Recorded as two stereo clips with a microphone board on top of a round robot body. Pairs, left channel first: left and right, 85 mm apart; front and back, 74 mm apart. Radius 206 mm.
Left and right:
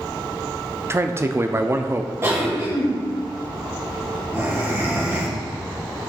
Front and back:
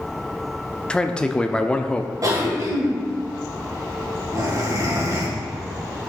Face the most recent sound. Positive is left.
turn(degrees=-145)